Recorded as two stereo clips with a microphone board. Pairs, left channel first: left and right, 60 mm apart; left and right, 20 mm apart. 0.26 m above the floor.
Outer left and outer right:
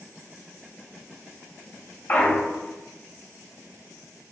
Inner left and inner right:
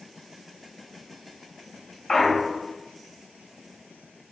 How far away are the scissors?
No scissors in this recording.